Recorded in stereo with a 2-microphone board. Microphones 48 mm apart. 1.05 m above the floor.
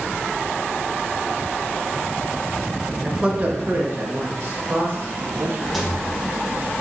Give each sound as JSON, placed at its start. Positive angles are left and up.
{"t": 3.0, "sound": "a man speaking", "side_deg": -15, "distance_m": 0.6}
{"t": 5.7, "sound": "a rattle", "side_deg": -5, "distance_m": 0.6}